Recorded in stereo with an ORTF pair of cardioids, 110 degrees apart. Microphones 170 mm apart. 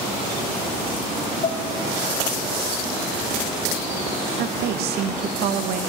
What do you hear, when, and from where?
1.4 s dishes clattering: 40° left, 0.8 m
4.4 s a woman speaking: 70° right, 0.6 m